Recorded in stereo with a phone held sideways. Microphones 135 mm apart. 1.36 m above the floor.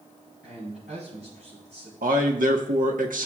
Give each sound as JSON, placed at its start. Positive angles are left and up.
{"t": 0.4, "sound": "a man speaking", "side_deg": -75, "distance_m": 5.0}
{"t": 2.0, "sound": "a man speaking", "side_deg": -85, "distance_m": 1.3}